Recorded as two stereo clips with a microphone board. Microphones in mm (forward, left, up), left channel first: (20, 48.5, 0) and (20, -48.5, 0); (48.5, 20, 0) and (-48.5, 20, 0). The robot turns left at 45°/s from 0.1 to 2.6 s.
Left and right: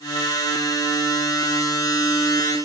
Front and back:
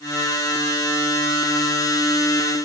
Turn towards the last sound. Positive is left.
No sound to turn to.